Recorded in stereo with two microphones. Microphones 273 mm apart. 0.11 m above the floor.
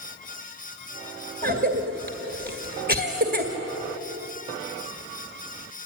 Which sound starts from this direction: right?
A cough, at 1.4 s.